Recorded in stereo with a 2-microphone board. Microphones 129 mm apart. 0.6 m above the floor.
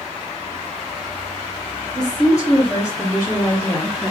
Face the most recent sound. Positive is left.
turn(degrees=20)  # may be behind; listen again after turning